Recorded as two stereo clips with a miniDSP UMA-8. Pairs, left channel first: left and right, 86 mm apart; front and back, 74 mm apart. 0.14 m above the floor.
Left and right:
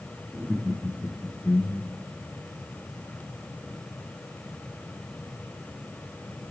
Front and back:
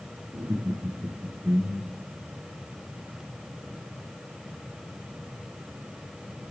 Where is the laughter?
170° right, 1.3 m; by 2.1 s 100° left, 1.5 m.